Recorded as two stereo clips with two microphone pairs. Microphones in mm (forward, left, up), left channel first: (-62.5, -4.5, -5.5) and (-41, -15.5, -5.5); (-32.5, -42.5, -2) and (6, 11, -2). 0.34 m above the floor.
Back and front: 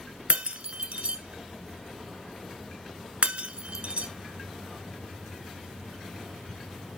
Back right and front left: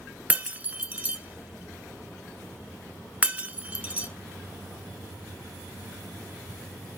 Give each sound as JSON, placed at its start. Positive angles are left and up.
{"t": 0.3, "sound": "breaking glass", "azimuth_deg": -15, "distance_m": 1.0}